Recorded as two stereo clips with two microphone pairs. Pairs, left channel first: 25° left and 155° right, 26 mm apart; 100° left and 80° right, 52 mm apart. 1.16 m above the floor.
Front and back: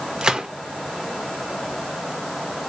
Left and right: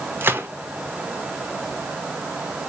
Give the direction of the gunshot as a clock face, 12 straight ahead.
4 o'clock.